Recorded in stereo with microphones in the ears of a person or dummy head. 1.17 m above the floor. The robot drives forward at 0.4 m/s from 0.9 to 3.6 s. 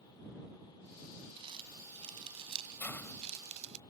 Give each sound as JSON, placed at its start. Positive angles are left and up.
{"t": 1.4, "sound": "crumpling", "side_deg": -35}
{"t": 2.8, "sound": "a hiss", "side_deg": 15}